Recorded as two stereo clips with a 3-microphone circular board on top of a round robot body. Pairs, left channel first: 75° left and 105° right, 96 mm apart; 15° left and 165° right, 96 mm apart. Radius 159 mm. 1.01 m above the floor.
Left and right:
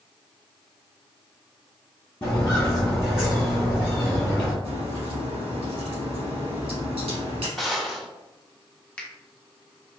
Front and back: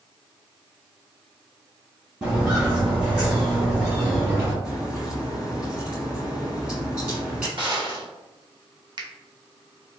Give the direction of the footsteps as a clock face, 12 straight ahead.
7 o'clock.